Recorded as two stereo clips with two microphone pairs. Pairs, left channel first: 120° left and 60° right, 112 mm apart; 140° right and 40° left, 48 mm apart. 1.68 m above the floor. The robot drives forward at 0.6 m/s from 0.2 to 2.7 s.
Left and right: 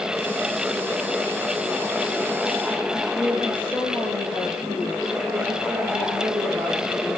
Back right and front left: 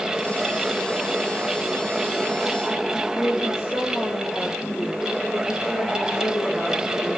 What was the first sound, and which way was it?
A woman speaking, 135° right.